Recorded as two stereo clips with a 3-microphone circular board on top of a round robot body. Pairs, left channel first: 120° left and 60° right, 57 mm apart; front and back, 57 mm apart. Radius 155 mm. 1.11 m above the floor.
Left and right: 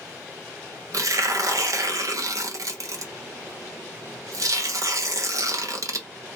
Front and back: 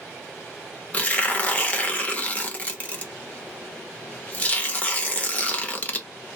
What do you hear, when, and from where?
0.9 s tearing paper: 65° right, 1.0 m